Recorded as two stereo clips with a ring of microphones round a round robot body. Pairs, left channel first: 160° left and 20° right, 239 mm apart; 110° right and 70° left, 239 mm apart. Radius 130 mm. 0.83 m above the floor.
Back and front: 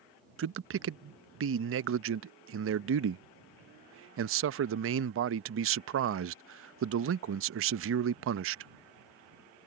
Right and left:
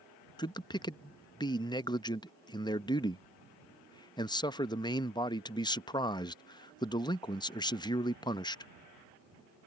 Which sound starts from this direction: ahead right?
A man speaking, at 0.4 s.